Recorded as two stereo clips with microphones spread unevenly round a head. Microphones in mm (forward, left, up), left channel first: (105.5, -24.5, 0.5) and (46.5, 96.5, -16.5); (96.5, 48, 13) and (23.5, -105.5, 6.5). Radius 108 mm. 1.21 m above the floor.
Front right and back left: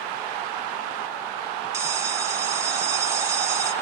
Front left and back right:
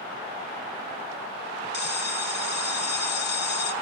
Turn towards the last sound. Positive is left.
turn(degrees=45)